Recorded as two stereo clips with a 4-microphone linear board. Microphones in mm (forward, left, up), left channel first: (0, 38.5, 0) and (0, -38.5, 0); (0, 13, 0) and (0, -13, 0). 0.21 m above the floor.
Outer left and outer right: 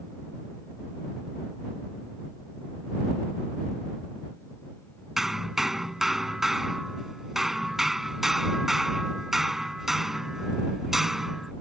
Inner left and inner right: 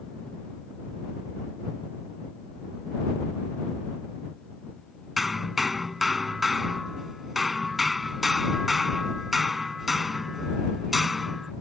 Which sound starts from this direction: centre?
Hammering, at 5.2 s.